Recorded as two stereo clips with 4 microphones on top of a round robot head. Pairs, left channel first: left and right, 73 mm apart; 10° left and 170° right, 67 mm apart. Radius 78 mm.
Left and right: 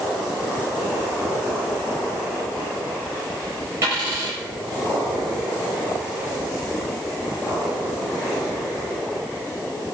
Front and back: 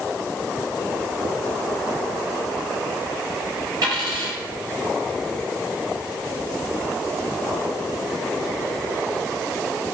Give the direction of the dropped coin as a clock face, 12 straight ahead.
5 o'clock.